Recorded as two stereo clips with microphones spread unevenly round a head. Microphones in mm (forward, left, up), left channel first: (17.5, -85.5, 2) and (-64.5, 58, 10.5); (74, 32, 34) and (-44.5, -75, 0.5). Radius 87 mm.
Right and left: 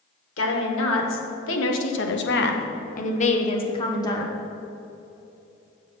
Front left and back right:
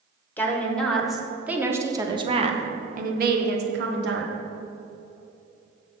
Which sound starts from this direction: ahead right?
A woman speaking, at 0.4 s.